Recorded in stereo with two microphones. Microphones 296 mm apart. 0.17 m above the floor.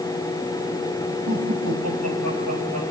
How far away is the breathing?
I don't hear breathing.